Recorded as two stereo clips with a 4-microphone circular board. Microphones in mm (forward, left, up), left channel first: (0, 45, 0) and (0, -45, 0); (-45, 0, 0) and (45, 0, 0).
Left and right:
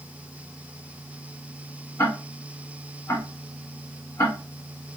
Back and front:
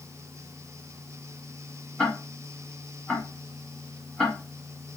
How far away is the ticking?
About 1.4 m.